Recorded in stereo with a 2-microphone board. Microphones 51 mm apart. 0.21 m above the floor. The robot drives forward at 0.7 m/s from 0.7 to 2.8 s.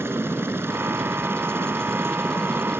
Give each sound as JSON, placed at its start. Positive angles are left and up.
{"t": 0.0, "sound": "a helicopter", "side_deg": -50}